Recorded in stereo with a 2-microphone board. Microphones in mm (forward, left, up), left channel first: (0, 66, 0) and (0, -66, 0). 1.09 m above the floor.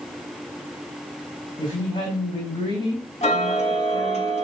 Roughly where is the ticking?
Left.